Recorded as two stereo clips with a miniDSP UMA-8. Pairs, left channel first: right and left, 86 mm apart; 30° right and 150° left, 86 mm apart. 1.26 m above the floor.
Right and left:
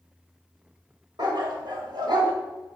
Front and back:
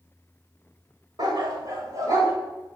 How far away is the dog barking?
About 2 m.